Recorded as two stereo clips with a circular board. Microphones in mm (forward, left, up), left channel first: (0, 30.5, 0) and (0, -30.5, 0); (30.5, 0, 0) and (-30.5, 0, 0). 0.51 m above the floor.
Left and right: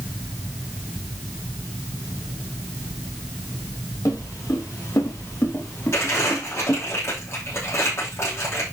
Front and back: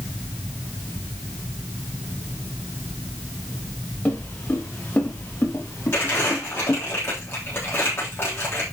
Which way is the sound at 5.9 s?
50° left.